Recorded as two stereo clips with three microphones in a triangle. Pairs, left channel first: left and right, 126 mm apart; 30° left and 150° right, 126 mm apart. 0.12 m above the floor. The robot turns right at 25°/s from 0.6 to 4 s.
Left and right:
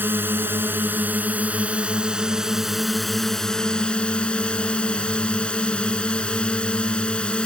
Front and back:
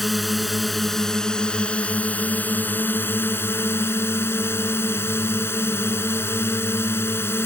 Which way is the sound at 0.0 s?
60° right.